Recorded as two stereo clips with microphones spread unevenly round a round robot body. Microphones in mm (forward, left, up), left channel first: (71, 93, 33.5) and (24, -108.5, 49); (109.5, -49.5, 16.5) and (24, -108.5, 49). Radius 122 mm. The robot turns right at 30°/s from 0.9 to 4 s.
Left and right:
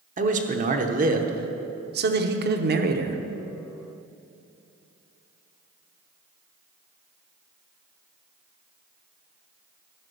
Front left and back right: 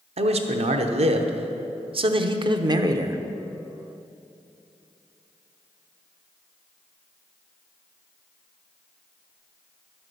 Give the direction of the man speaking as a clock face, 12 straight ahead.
5 o'clock.